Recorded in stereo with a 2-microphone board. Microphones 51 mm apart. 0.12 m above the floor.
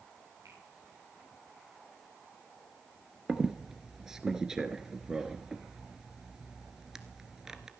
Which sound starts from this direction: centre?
A squeak, at 3.3 s.